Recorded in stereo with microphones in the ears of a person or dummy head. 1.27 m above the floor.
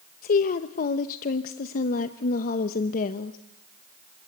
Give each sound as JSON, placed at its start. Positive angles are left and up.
{"t": 0.2, "sound": "a woman speaking", "side_deg": 45, "distance_m": 0.9}